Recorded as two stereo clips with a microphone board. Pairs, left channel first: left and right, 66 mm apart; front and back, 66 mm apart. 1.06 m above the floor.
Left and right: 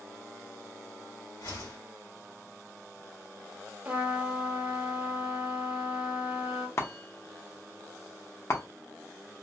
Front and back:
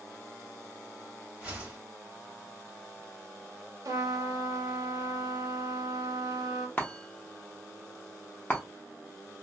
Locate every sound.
1.4 s a whoosh: 110° left, 1.6 m
3.9 s a trumpet: 155° right, 0.8 m
6.8 s a chime: 60° left, 0.7 m